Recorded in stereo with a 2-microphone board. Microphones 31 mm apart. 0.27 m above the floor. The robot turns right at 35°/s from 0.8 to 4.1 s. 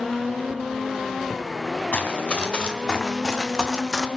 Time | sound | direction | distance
1.9 | running footsteps | 55° left (ahead or behind) | 2.5 m